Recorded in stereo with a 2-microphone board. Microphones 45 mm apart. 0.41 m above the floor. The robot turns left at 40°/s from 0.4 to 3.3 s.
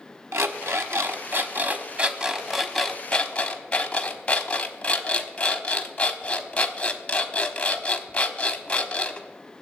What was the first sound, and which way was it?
An alarm clock, 95° right.